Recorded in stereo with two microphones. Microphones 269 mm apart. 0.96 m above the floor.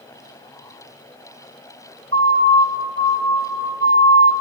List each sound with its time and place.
2.1 s a siren: 55° right (ahead or behind), 4 m